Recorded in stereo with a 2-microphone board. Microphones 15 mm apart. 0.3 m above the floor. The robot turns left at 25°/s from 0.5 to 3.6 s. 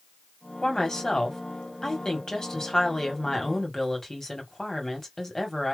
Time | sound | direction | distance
0.6 | a woman speaking | 110° left | 1.9 m